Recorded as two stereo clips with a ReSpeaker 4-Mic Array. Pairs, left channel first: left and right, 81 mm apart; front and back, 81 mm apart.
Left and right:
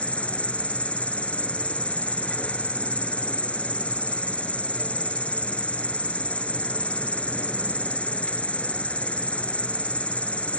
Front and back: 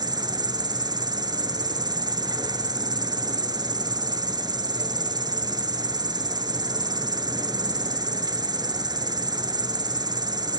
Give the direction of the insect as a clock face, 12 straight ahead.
7 o'clock.